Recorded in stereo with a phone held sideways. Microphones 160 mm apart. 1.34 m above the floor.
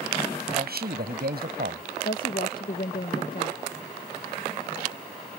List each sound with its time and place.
0.5 s a man speaking: 65° right (ahead or behind)
2.0 s a woman speaking: 60° left (ahead or behind)